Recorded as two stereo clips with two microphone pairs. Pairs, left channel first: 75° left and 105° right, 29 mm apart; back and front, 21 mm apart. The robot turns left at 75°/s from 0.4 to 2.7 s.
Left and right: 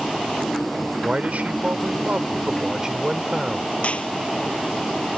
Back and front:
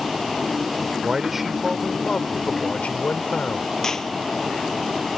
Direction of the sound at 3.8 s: 115° left.